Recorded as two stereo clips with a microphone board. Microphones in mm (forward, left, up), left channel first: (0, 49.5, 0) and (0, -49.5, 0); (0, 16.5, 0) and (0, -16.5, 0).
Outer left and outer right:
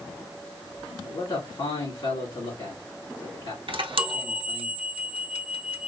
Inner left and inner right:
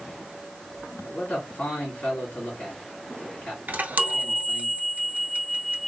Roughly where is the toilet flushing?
No toilet flushing in this recording.